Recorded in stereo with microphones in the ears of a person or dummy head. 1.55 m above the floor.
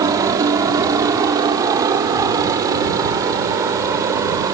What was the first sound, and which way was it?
A helicopter, 20° right (ahead or behind).